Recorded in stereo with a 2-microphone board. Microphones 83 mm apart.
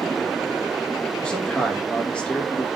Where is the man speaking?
10° left (ahead or behind), 1.2 m.